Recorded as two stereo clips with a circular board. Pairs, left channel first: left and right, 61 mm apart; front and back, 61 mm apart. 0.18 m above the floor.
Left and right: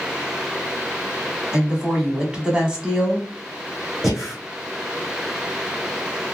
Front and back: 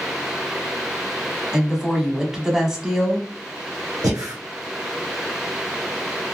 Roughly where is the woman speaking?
Behind right.